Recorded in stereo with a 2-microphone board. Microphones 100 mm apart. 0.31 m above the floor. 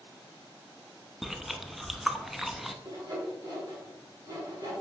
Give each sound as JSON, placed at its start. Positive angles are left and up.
{"t": 1.2, "sound": "chewing", "side_deg": 0, "distance_m": 0.5}
{"t": 2.9, "sound": "sawing", "side_deg": -40, "distance_m": 3.5}